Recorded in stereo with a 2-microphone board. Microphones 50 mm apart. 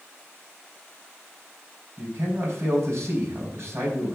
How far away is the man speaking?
About 4.5 m.